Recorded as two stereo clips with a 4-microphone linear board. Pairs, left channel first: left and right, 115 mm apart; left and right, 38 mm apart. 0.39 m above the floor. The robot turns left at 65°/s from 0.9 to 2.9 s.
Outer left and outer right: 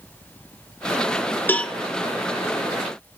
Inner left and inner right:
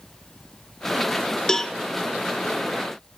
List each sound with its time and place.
1.5 s a cowbell: 15° left (ahead or behind), 0.5 m; by 1.8 s centre (ahead or behind), 0.5 m